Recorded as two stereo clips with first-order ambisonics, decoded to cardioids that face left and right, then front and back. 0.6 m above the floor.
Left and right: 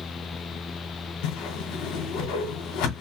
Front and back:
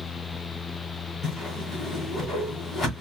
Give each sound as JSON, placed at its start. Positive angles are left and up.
{"t": 1.2, "sound": "a whoosh", "azimuth_deg": 75, "distance_m": 2.5}